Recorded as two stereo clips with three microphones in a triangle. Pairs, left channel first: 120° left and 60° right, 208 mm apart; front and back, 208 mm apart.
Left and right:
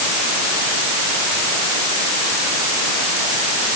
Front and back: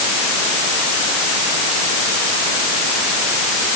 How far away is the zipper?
I don't hear a zipper.